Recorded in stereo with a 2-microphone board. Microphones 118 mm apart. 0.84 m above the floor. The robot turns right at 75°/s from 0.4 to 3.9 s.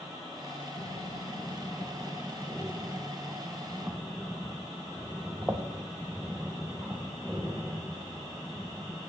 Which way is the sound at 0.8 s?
40° left (ahead or behind).